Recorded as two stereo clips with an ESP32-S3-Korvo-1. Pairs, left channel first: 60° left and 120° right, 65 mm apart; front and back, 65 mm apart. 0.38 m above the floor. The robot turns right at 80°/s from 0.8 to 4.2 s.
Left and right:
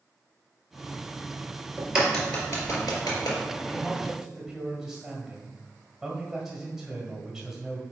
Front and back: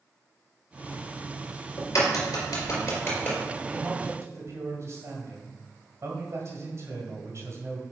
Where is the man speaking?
110° left, 2 m; by 7.8 s 155° left, 2 m.